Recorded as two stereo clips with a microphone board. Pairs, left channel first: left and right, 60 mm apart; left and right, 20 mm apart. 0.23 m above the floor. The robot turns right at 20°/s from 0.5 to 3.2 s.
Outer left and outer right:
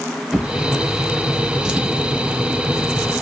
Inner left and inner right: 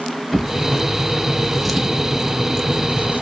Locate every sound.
0.3 s a drawer: centre (ahead or behind), 0.8 m; by 3.2 s 25° right (ahead or behind), 0.8 m